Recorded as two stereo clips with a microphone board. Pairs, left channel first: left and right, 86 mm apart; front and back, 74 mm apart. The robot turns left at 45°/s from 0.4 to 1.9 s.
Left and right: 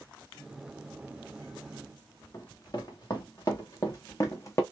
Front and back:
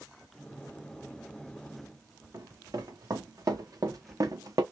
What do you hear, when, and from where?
2.3 s running footsteps: 135° left, 2.5 m; by 4.6 s 145° left, 1.2 m